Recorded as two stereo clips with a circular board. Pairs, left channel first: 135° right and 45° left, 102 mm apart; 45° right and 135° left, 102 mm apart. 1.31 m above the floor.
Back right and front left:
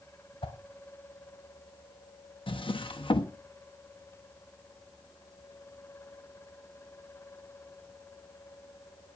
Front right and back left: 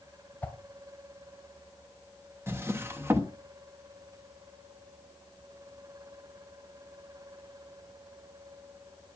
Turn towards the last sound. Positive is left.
turn(degrees=-160)